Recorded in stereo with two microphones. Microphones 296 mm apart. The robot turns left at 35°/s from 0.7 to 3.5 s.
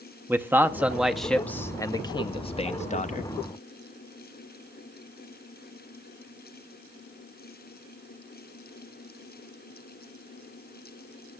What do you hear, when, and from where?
0.3 s a man speaking: 5° right (ahead or behind), 0.5 m; by 3.3 s 25° left (ahead or behind), 0.5 m